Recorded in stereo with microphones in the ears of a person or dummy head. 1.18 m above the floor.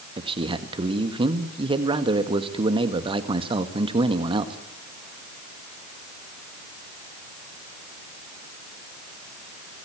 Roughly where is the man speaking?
Right.